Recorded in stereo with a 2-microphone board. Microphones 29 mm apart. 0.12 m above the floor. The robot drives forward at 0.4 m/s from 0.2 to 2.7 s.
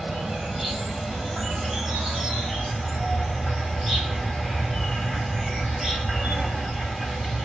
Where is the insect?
10° right (ahead or behind), 1.5 m; by 7.5 s 5° right (ahead or behind), 2.5 m.